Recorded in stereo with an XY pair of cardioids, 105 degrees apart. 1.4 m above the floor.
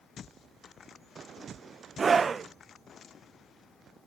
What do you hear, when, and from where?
2.0 s a scream: 40° right, 1.4 m